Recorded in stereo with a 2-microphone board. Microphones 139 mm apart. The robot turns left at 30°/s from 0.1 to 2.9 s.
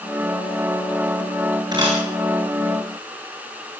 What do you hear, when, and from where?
1.7 s a camera shutter: 30° right (ahead or behind), 8.5 m; by 2.0 s 40° right (ahead or behind), 8.5 m